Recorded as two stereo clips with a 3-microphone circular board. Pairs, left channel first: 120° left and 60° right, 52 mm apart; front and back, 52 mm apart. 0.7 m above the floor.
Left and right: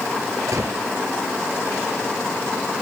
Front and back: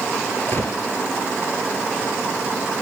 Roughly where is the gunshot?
Ahead right.